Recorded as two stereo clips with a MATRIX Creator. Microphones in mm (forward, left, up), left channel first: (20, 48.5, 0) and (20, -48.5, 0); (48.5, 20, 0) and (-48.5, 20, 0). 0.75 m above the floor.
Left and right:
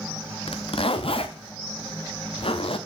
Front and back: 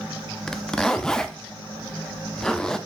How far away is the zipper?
About 0.6 m.